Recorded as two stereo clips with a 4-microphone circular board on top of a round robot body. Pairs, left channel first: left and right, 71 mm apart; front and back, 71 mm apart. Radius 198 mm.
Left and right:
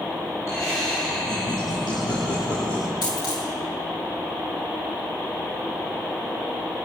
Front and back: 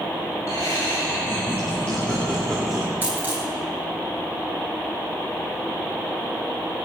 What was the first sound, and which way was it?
Laughter, 40° left.